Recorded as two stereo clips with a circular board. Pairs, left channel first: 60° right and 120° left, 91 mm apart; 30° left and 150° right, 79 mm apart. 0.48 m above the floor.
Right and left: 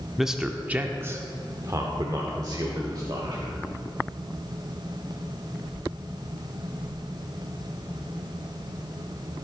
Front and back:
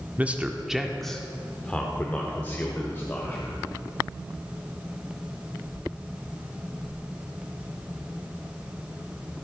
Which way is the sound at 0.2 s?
155° right.